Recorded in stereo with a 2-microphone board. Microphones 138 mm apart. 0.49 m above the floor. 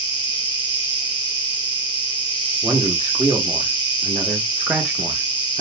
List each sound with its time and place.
0.0 s an insect: 35° left (ahead or behind), 0.8 m
2.6 s a man speaking: 10° right (ahead or behind), 0.9 m